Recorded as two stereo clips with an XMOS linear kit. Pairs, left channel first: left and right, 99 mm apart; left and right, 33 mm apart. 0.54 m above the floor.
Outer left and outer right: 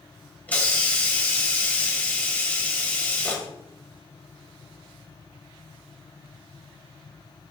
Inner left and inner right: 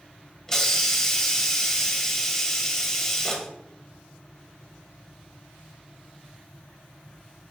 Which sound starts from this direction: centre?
A hiss, at 0.5 s.